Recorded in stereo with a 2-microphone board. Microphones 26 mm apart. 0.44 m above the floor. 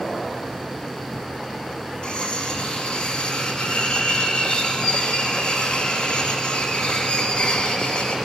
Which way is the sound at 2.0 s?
35° left (ahead or behind).